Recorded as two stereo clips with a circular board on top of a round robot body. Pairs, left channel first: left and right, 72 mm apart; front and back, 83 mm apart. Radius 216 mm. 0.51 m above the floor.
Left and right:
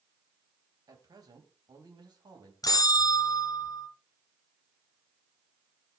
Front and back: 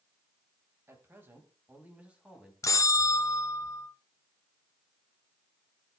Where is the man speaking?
120° right, 4 m; by 2.5 s 100° right, 4.5 m.